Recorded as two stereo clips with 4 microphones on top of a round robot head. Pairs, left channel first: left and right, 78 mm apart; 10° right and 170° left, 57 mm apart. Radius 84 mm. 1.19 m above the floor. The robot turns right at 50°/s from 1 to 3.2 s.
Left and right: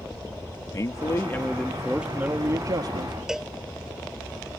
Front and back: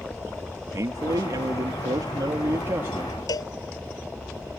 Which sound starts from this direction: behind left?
A man speaking, at 0.7 s.